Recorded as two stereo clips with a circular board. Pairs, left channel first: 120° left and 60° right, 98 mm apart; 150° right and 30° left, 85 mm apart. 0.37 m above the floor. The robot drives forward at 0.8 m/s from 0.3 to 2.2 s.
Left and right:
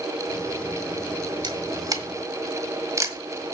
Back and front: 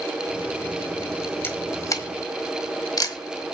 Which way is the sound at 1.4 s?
90° right.